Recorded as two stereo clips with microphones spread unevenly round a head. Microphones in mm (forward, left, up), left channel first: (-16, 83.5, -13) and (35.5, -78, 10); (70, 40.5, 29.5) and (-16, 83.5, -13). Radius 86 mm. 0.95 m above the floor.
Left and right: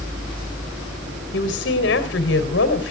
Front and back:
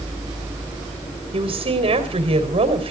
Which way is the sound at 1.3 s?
130° left.